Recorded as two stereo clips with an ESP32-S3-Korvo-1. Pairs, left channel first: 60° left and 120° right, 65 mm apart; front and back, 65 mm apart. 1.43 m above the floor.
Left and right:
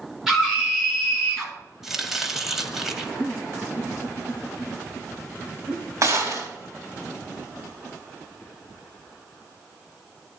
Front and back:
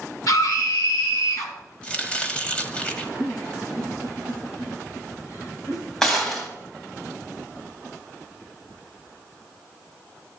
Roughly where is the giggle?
Ahead right.